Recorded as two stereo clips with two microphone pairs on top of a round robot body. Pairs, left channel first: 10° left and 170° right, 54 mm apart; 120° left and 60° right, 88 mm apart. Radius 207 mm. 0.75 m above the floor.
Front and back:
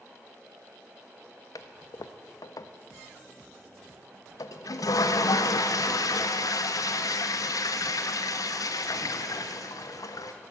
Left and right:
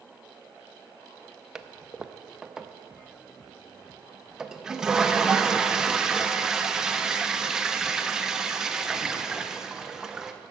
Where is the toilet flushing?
20° left, 0.5 m.